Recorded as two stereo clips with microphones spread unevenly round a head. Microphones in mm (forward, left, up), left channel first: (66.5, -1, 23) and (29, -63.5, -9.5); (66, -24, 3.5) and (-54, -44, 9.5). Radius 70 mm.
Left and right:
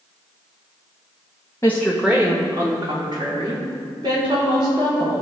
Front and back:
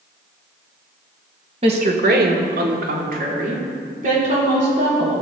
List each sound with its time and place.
1.6 s a woman speaking: 135° left, 1.3 m; by 5.1 s 150° right, 5 m